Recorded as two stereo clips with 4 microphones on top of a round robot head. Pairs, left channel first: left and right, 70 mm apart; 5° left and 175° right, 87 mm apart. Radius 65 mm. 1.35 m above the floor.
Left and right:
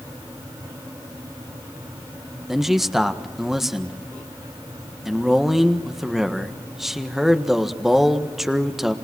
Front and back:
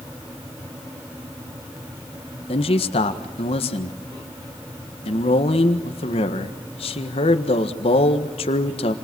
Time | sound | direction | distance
2.5 | a man speaking | 5° right | 1.6 m